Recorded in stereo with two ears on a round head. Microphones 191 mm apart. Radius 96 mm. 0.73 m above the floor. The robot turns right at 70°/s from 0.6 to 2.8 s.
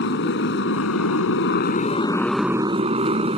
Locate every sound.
0.0 s a motorcycle: 55° left; by 3.4 s 150° right